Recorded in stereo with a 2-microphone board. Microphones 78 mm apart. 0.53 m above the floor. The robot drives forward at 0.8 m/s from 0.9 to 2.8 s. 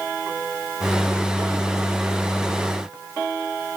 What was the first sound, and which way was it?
Only background noise.